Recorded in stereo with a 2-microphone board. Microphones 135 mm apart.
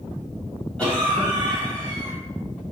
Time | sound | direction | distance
0.8 | a cough | 10° left (ahead or behind) | 3.5 m